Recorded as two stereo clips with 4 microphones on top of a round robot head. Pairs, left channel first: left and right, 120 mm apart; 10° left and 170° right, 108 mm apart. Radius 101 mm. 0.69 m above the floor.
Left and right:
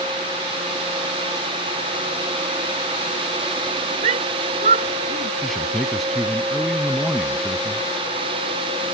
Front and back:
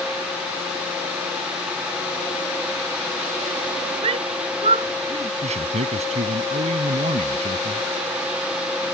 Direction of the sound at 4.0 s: 125° right.